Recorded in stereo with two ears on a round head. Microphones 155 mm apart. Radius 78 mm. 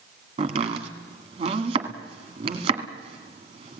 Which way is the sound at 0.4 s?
30° right (ahead or behind).